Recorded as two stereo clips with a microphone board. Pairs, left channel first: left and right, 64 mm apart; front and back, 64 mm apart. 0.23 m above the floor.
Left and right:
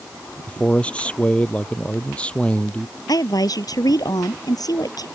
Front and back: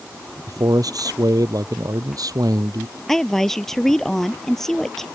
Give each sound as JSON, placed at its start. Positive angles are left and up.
{"t": 0.5, "sound": "a man speaking", "azimuth_deg": 160}
{"t": 3.1, "sound": "a woman speaking", "azimuth_deg": 85}